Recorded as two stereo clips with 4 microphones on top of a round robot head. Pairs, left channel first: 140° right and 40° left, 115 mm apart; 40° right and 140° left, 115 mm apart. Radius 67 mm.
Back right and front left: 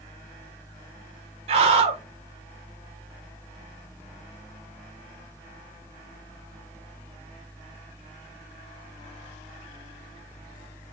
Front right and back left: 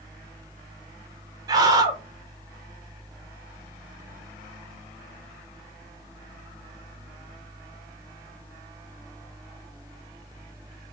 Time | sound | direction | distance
1.5 | a scream | 80° left | 1.1 m